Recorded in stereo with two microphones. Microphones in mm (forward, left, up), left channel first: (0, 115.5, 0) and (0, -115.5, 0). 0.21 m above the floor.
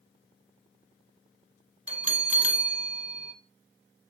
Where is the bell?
30° right (ahead or behind), 1.3 m.